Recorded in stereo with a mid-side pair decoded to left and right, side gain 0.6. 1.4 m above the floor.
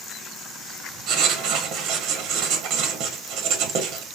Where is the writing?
70° right, 1.1 m.